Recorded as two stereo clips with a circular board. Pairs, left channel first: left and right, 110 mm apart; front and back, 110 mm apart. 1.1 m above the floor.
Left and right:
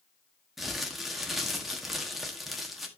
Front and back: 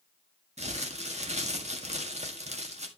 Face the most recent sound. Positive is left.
turn(degrees=180)